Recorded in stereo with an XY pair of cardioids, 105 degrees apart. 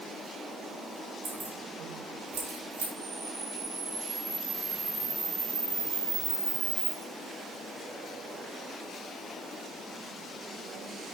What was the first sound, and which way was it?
Keys jangling, 50° right.